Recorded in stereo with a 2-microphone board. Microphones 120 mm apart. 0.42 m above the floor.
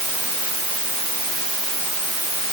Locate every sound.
Only background noise.